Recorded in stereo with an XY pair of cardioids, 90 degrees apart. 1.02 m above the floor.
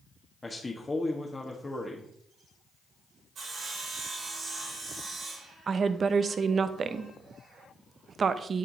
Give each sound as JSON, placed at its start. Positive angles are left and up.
{"t": 0.4, "sound": "a man speaking", "azimuth_deg": 25, "distance_m": 1.1}
{"t": 3.4, "sound": "sawing", "azimuth_deg": -70, "distance_m": 3.0}
{"t": 5.7, "sound": "a woman speaking", "azimuth_deg": -50, "distance_m": 0.6}